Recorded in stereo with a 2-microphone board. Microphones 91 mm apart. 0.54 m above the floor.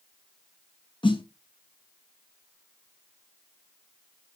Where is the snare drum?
70° left (ahead or behind), 1.1 m.